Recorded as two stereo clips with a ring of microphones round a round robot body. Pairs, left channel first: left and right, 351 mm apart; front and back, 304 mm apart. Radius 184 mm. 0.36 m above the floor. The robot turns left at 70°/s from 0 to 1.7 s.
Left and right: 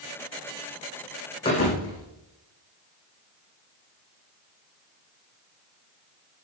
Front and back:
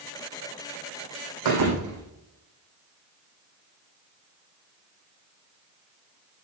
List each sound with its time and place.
1.4 s a thud: 170° left, 6.5 m; by 2.0 s 150° left, 6.5 m